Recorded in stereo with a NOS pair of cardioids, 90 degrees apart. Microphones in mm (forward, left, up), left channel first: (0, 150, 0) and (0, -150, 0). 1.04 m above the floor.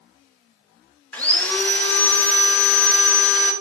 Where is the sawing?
5° left, 0.5 m.